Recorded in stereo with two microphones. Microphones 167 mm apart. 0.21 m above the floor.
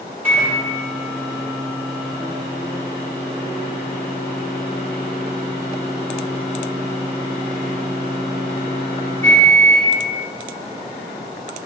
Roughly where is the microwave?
Centre.